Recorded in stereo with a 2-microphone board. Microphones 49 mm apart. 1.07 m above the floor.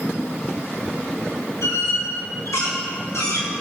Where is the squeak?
85° left, 5 m.